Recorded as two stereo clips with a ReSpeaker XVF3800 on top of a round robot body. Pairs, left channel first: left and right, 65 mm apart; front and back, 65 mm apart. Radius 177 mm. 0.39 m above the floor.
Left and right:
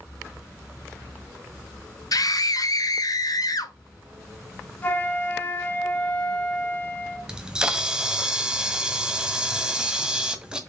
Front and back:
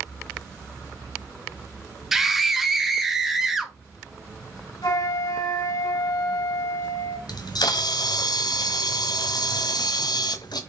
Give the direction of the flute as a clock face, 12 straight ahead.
11 o'clock.